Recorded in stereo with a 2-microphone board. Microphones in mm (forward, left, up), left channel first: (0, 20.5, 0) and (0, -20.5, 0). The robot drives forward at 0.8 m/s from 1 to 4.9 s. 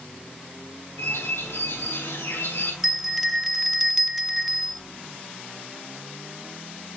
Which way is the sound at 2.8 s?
Centre (ahead or behind).